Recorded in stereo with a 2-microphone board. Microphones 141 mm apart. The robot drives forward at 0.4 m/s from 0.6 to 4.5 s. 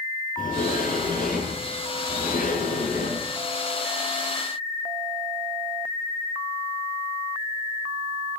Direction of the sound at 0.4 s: 80° left.